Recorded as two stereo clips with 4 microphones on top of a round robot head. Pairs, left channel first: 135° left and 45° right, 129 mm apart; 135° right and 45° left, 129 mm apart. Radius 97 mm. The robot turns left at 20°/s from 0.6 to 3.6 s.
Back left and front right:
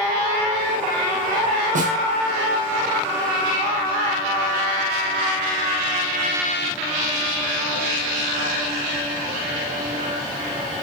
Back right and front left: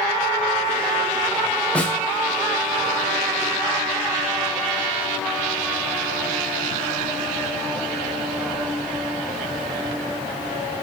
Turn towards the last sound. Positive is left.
turn(degrees=-90)